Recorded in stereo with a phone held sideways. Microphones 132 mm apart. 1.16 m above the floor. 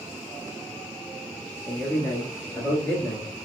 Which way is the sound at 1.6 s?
5° left (ahead or behind).